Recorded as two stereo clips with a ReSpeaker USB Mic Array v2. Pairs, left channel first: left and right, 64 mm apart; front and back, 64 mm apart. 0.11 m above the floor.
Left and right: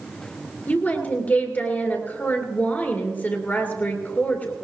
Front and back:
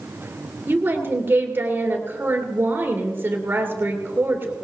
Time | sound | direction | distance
0.7 | a woman speaking | 140° left | 2.5 m